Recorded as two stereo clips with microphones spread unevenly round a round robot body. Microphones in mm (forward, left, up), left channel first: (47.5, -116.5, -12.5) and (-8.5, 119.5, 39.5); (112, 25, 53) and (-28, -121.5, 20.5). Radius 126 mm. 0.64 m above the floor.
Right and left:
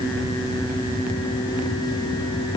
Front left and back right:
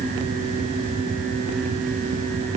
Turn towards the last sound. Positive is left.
No sound to turn to.